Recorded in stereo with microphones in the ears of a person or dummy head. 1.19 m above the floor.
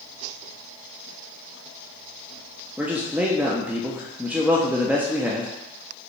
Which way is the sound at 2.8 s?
10° right (ahead or behind).